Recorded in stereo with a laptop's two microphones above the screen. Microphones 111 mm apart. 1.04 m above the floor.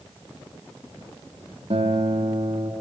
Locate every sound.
1.7 s a guitar: 70° right (ahead or behind), 2.0 m